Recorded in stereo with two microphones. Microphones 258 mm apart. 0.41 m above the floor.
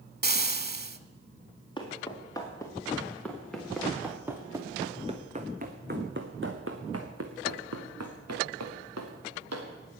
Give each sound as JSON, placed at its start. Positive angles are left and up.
{"t": 0.2, "sound": "frying", "side_deg": -40, "distance_m": 0.7}
{"t": 1.8, "sound": "footsteps", "side_deg": 15, "distance_m": 4.0}